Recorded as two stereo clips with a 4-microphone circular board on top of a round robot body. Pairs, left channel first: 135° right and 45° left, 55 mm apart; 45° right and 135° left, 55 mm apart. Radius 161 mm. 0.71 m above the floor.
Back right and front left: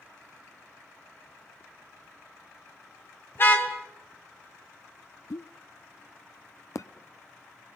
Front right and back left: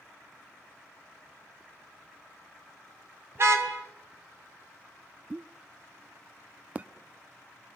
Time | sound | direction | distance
3.4 | a car horn | 175° left | 3.5 m
5.3 | a pop | 160° right | 0.8 m